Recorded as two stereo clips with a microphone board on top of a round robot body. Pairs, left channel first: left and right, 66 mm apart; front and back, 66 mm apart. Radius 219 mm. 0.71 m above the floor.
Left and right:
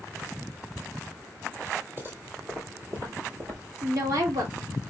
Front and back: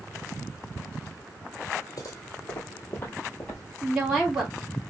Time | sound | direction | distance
2.0 | footsteps | 35° right | 1.4 m
3.8 | a woman speaking | 100° right | 2.5 m